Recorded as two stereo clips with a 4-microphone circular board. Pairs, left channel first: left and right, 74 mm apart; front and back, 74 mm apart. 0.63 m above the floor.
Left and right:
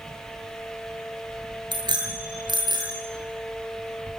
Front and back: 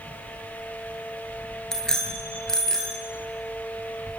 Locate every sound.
1.7 s a bicycle bell: 85° right, 7.5 m; by 3.0 s 80° right, 9.5 m